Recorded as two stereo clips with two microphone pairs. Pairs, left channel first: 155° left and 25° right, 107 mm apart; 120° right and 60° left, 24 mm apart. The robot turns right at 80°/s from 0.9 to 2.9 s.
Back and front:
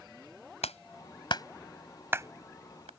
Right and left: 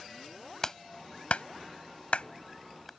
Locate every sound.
0.6 s a clap: 165° left; by 2.9 s 35° right